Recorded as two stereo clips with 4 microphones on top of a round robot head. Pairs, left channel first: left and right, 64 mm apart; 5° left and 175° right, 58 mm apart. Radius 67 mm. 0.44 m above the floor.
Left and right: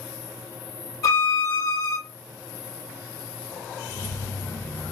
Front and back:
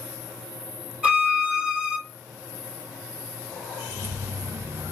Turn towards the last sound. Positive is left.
turn(degrees=145)